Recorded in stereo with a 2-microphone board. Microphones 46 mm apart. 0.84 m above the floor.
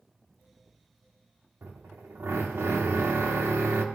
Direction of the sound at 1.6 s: 75° right (ahead or behind).